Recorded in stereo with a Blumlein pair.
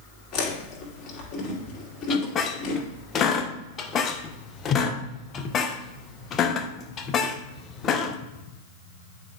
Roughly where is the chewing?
Ahead left.